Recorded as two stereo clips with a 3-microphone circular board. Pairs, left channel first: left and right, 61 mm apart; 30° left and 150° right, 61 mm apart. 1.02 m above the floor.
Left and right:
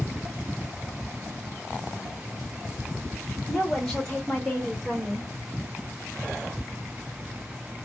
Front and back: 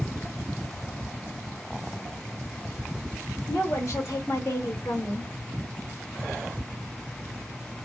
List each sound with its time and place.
3.5 s a woman speaking: 15° left, 1.3 m; by 5.3 s 15° right, 1.9 m